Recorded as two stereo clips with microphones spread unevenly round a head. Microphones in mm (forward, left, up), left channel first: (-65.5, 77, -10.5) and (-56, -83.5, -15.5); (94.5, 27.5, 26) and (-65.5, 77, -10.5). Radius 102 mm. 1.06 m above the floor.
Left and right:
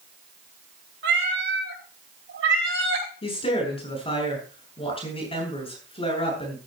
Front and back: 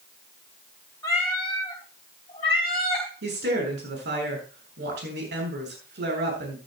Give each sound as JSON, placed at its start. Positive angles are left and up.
{"t": 1.0, "sound": "a cat meowing", "azimuth_deg": -95, "distance_m": 4.0}
{"t": 3.2, "sound": "a woman speaking", "azimuth_deg": 150, "distance_m": 7.5}